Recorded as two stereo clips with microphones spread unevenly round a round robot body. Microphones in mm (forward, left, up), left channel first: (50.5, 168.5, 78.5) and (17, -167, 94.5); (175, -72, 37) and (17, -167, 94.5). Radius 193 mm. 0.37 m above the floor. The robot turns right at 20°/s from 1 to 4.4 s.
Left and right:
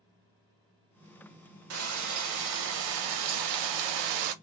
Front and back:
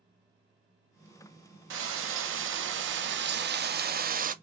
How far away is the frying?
About 0.6 m.